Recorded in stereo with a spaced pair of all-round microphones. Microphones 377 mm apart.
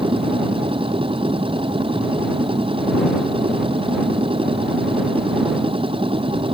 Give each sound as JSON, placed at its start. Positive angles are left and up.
{"t": 0.0, "sound": "a machine running", "side_deg": -15}